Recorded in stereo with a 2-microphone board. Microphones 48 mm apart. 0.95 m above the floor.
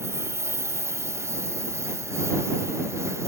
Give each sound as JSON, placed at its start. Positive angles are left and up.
{"t": 0.0, "sound": "a lawn mower", "side_deg": -75}